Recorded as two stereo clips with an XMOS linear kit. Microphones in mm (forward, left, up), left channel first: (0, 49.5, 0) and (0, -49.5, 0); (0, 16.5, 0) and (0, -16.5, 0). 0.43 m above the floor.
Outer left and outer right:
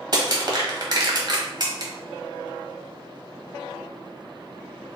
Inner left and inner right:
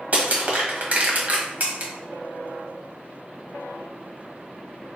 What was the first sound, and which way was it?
Crushing, 45° right (ahead or behind).